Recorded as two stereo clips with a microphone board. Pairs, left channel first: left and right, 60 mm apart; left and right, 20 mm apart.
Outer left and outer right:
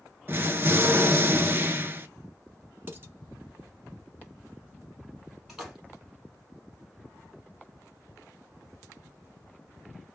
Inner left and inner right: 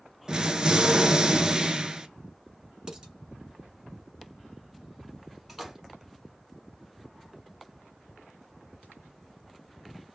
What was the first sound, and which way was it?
An explosion, 40° right (ahead or behind).